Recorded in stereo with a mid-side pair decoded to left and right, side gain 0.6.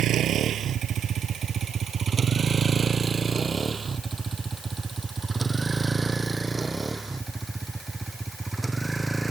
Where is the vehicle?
50° right; by 9.3 s 10° right.